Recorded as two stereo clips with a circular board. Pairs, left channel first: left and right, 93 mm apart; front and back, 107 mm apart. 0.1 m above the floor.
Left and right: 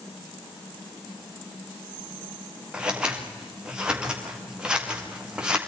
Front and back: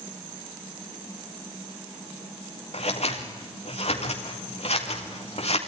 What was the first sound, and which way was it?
Scissors, 10° right.